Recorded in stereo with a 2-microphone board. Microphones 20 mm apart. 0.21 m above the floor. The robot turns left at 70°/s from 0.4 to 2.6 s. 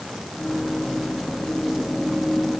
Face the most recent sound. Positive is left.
No sound to turn to.